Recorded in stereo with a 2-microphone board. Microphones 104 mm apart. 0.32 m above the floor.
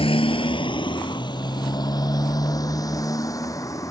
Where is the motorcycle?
70° left (ahead or behind); by 3.9 s 35° left (ahead or behind).